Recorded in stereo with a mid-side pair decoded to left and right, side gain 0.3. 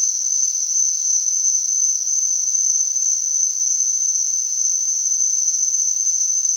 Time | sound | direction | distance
0.0 | an insect | 10° left | 1.8 m